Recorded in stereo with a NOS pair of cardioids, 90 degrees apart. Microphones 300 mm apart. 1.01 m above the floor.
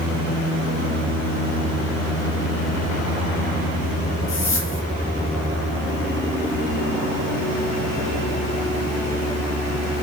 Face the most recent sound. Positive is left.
turn(degrees=45)